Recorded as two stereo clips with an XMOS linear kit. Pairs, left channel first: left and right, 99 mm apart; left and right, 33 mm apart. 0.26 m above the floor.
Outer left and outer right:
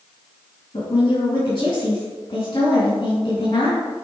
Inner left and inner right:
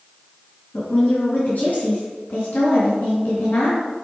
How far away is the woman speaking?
About 3.5 m.